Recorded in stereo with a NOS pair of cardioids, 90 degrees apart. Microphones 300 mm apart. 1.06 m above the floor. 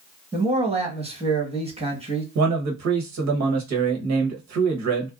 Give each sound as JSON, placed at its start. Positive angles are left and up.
{"t": 0.3, "sound": "a man speaking", "azimuth_deg": -20, "distance_m": 1.4}
{"t": 2.4, "sound": "a man speaking", "azimuth_deg": -65, "distance_m": 1.1}